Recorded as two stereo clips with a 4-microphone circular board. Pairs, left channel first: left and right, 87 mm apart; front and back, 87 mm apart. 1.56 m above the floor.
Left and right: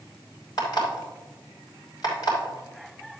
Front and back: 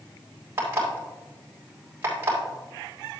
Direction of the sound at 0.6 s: 120° left.